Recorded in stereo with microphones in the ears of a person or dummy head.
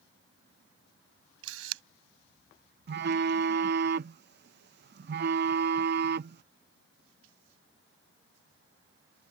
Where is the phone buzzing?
55° right (ahead or behind).